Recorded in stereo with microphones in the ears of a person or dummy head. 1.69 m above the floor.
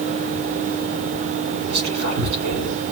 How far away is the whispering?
About 3 m.